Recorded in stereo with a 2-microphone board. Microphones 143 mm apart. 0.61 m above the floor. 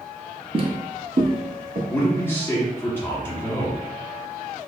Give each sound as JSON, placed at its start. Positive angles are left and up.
{"t": 0.5, "sound": "footsteps", "side_deg": -35, "distance_m": 0.8}
{"t": 1.9, "sound": "a man speaking", "side_deg": 15, "distance_m": 1.1}